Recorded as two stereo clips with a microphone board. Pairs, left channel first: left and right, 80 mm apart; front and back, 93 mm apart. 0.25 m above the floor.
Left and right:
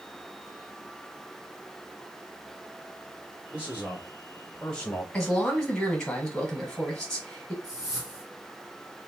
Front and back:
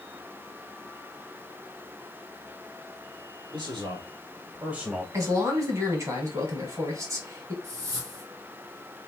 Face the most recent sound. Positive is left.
turn(degrees=-135)